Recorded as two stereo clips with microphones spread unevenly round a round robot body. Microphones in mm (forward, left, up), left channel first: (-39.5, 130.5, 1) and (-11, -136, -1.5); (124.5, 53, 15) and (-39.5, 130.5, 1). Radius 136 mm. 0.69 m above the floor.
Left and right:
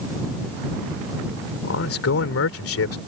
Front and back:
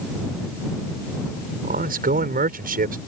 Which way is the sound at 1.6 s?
130° left.